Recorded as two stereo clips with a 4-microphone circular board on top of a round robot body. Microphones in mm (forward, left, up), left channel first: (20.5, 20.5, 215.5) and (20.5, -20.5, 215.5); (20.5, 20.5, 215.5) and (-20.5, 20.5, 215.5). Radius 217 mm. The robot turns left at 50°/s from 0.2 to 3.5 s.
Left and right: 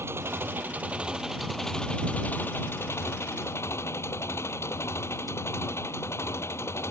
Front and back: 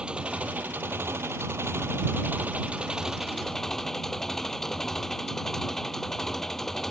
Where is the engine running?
115° right; by 6.9 s 80° left.